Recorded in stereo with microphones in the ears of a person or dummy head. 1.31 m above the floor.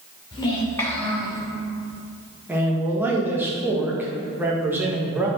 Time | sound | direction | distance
0.3 | a child speaking | 25° left (ahead or behind) | 2.5 m
2.5 | a man speaking | 10° right (ahead or behind) | 1.5 m